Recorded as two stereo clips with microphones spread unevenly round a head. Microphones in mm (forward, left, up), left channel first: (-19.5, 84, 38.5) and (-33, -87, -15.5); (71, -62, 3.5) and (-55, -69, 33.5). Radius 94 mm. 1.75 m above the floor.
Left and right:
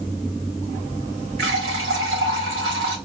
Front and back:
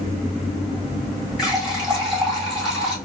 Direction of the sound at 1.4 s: 95° right.